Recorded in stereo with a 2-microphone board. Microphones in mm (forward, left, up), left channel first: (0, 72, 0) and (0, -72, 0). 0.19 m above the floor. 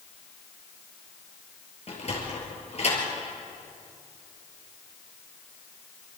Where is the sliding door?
50° left (ahead or behind), 4.5 m.